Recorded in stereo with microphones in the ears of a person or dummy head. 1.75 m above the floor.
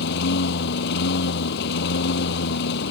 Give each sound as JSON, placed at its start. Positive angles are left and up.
{"t": 0.0, "sound": "a lawn mower", "side_deg": 60}